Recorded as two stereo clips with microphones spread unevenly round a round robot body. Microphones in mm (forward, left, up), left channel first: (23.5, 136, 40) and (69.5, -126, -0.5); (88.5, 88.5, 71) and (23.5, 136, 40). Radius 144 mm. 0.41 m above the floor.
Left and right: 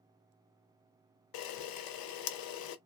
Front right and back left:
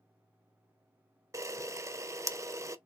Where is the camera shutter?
85° left, 0.7 m.